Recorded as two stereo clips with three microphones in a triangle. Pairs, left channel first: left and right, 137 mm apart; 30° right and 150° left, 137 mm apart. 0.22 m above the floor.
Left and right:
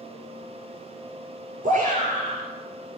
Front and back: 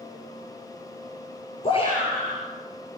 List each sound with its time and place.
1.6 s a shout: 75° right, 4 m